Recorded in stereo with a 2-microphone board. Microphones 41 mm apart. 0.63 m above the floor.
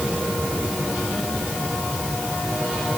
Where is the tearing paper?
I don't hear tearing paper.